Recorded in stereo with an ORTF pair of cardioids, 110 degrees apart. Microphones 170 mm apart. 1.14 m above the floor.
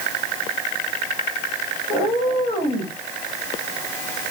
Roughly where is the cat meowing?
Ahead left.